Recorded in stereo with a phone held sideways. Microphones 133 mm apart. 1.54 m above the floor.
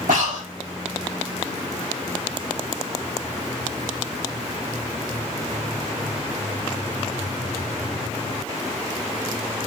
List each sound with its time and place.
0.1 s breathing: 90° right, 3 m